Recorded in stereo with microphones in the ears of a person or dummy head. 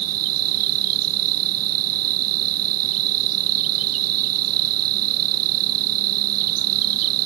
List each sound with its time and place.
0.0 s an insect: 85° right